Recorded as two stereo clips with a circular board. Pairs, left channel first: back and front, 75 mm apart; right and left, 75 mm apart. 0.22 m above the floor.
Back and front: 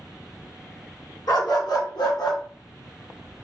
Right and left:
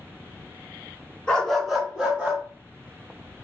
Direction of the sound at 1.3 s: 165° right.